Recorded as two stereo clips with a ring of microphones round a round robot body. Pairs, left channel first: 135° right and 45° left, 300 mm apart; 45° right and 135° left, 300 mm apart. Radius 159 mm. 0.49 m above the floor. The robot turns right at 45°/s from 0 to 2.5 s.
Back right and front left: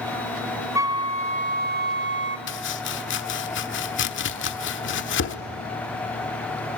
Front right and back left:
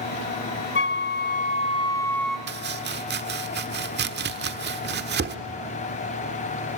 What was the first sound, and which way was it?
A flute, 30° right.